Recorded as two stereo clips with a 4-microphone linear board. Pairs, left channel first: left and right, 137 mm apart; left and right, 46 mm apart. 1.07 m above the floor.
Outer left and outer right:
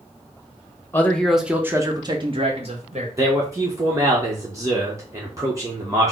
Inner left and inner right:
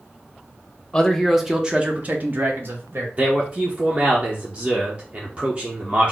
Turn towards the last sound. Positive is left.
turn(degrees=-25)  # may be behind; listen again after turning